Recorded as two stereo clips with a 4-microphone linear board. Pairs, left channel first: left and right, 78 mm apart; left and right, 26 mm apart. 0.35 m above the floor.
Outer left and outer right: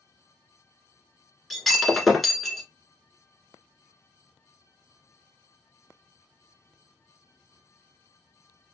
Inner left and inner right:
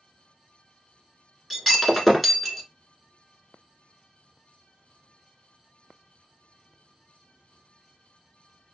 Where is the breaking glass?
Centre (ahead or behind), 1.2 m.